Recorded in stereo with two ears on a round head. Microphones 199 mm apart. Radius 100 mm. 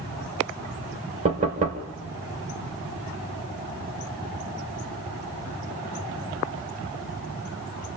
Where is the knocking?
30° right (ahead or behind), 2 m.